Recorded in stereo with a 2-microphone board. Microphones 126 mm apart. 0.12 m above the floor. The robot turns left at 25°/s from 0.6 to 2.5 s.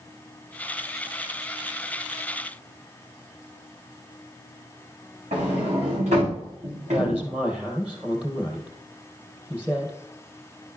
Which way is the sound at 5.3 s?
80° right.